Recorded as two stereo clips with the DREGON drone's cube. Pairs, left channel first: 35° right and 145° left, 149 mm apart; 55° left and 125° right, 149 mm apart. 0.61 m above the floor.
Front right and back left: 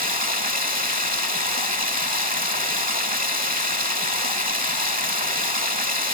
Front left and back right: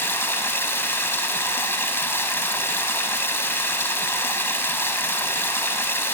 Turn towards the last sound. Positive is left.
turn(degrees=130)